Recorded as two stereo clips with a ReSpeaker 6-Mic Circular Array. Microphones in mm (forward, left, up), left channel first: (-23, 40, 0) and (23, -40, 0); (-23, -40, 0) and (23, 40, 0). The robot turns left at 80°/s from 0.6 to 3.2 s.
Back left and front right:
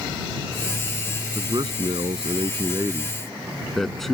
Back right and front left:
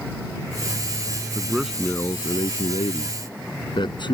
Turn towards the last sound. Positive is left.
turn(degrees=-150)